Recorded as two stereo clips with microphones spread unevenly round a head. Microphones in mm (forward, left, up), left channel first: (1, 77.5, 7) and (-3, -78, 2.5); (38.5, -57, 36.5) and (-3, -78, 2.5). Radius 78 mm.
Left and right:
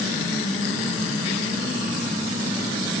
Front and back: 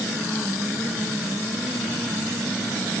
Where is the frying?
No frying in this recording.